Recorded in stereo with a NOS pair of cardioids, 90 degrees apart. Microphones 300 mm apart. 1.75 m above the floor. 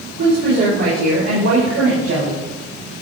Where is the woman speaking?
60° right, 5.5 m; by 2.4 s 45° right, 6 m.